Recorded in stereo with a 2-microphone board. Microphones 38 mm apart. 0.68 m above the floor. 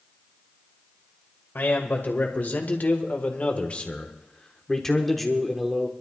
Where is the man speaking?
60° left (ahead or behind), 2.5 m; by 5.9 s 10° right (ahead or behind), 1.5 m.